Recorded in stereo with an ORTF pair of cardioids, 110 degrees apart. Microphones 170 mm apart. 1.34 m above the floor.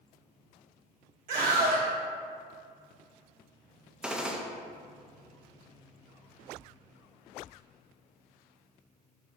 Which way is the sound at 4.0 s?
5° right.